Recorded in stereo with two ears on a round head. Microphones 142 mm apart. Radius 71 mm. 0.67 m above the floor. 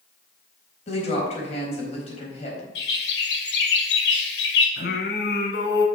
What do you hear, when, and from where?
0.9 s a woman speaking: 45° left (ahead or behind), 4 m
2.8 s a bird: 75° left (ahead or behind), 2 m
4.8 s singing: 70° left (ahead or behind), 2 m